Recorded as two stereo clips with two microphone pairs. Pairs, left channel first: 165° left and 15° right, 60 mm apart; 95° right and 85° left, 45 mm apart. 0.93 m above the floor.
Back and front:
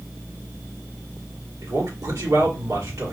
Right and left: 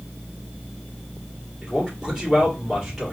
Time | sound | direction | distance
1.6 | a man speaking | straight ahead | 2 m